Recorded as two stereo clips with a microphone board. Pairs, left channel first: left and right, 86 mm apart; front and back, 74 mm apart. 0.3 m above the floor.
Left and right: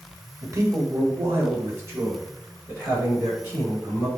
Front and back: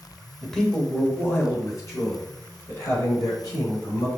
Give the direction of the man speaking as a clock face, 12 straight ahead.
3 o'clock.